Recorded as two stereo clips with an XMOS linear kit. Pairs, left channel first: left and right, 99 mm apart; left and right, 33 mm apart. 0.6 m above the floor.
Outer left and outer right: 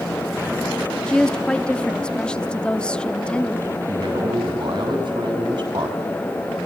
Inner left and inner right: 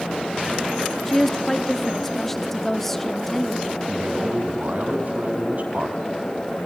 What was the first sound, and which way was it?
A woman speaking, 10° left (ahead or behind).